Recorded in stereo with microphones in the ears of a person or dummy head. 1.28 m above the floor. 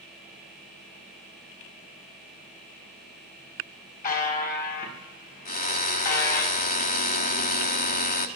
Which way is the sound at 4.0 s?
45° left (ahead or behind).